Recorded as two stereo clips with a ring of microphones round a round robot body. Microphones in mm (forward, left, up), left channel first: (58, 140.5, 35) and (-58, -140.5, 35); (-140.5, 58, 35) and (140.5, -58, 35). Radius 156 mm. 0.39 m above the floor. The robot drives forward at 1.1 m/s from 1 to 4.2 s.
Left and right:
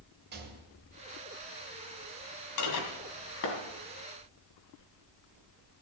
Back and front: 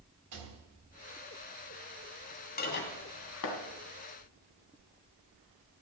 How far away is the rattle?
About 2 m.